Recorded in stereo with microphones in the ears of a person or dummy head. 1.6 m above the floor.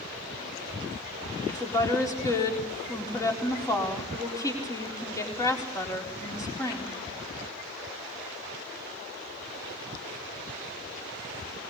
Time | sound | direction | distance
1.5 | a woman speaking | 20° left (ahead or behind) | 4 m